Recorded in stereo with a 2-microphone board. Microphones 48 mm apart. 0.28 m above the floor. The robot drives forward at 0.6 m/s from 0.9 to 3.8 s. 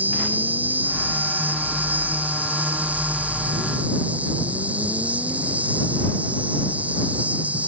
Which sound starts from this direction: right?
An insect, at 0.0 s.